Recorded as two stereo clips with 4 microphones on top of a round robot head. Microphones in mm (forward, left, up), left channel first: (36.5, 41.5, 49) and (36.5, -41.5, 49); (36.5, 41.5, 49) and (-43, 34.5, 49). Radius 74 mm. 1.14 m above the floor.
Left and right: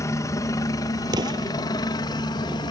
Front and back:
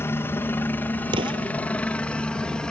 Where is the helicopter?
55° left; by 2.7 s 85° left.